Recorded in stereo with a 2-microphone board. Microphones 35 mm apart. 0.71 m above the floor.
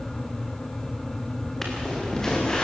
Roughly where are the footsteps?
Centre.